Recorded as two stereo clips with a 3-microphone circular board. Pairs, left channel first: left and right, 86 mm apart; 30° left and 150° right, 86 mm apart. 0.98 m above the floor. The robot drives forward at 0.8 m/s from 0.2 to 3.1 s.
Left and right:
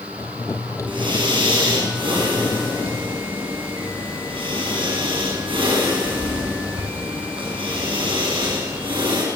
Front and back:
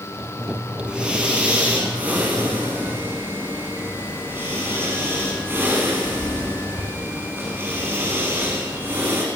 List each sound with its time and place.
0.9 s breathing: 70° right, 7 m; by 9.2 s 90° right, 6.5 m